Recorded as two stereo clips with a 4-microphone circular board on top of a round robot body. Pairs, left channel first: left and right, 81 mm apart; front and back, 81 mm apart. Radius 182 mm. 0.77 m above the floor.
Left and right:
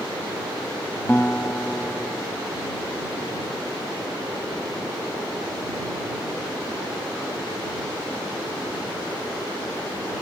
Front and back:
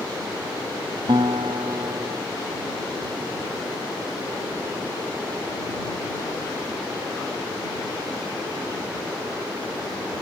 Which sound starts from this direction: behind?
A guitar, at 1.1 s.